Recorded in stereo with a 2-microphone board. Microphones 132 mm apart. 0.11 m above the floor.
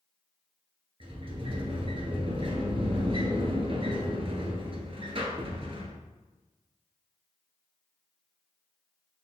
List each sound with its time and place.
1.0 s a sliding door: 45° right (ahead or behind), 0.9 m